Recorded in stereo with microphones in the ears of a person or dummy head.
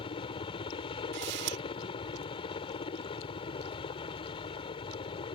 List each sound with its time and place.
0.0 s a helicopter: 25° left (ahead or behind)
1.1 s a camera shutter: 55° right (ahead or behind)